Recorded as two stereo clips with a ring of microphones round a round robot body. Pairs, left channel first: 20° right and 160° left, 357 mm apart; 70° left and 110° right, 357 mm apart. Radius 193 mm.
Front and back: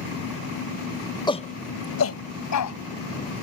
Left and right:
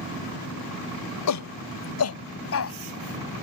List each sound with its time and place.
1.3 s a shout: 50° left; by 2.8 s 15° left